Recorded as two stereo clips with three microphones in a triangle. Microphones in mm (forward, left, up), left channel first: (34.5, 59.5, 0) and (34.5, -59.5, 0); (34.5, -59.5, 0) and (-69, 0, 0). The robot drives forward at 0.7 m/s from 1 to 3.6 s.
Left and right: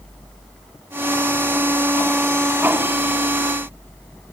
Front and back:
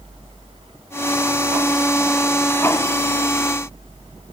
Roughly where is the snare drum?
I don't hear a snare drum.